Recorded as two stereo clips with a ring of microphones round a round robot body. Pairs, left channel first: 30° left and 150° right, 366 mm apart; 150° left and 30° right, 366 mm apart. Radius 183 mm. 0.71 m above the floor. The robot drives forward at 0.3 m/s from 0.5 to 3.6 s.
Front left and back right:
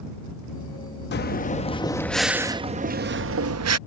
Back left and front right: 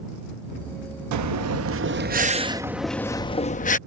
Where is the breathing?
20° right; by 3.8 s 150° right.